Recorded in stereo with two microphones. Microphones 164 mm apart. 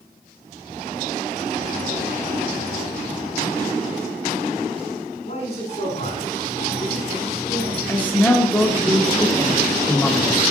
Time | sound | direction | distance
5.2 | a man speaking | 45° left (ahead or behind) | 5 m
7.9 | a man speaking | 10° left (ahead or behind) | 1.1 m